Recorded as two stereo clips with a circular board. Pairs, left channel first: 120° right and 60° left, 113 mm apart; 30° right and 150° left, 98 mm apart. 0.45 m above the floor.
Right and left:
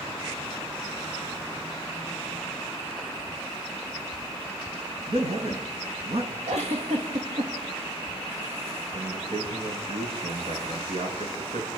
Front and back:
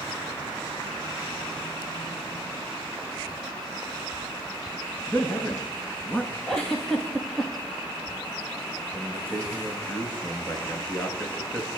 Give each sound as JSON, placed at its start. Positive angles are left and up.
{"t": 5.1, "sound": "a man speaking", "azimuth_deg": 45, "distance_m": 5.0}
{"t": 6.5, "sound": "a giggle", "azimuth_deg": 55, "distance_m": 6.5}
{"t": 8.9, "sound": "a man speaking", "azimuth_deg": 45, "distance_m": 7.0}